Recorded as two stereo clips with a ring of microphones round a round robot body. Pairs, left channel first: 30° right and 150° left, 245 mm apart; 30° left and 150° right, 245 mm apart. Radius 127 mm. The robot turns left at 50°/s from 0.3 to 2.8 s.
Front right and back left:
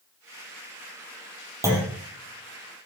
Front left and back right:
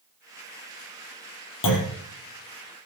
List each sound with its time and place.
1.6 s a clunk: 70° left, 4 m; by 2.0 s 55° left, 4 m